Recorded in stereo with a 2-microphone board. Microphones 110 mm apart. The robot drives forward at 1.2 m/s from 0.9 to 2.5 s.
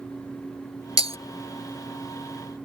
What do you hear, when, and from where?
1.0 s breaking glass: 60° right (ahead or behind); by 1.2 s 70° right (ahead or behind)